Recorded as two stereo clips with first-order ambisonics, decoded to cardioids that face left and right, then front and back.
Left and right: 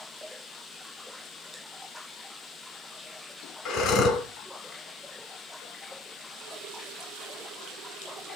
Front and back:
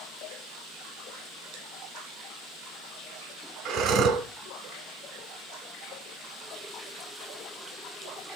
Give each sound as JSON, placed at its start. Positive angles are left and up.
{"t": 3.6, "sound": "breathing", "azimuth_deg": 135, "distance_m": 2.5}